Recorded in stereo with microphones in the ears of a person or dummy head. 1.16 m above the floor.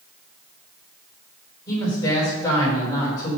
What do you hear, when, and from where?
1.7 s a woman speaking: 15° left (ahead or behind), 4 m